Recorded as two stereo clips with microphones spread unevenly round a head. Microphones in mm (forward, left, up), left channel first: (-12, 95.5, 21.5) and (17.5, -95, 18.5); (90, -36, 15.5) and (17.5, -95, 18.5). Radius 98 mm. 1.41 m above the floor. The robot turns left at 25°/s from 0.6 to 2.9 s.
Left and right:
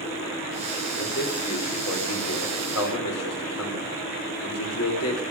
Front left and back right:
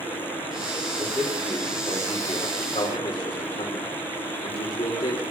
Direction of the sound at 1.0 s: 140° left.